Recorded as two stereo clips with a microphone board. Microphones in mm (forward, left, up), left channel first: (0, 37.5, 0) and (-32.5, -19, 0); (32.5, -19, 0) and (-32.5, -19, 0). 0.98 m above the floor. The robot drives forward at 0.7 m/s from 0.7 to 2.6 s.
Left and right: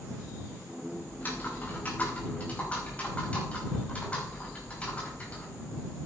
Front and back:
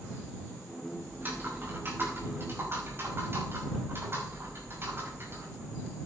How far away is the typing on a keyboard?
About 5.5 m.